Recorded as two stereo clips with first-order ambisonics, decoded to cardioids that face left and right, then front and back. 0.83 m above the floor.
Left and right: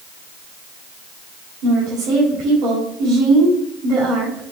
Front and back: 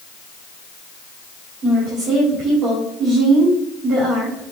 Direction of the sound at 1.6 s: 130° right.